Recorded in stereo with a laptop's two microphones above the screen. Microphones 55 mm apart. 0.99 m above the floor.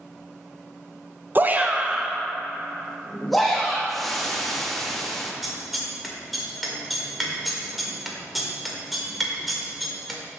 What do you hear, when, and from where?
1.4 s a shout: 35° right (ahead or behind), 0.6 m; by 3.8 s 5° left (ahead or behind), 1.6 m
3.9 s frying: 5° left (ahead or behind), 1.2 m
5.4 s scissors: centre (ahead or behind), 1.8 m